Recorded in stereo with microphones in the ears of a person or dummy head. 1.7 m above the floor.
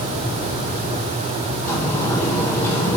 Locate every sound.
1.6 s a sliding door: 20° left (ahead or behind), 1.1 m